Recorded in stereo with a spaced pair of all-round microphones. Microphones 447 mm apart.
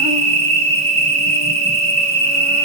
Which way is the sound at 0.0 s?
15° right (ahead or behind).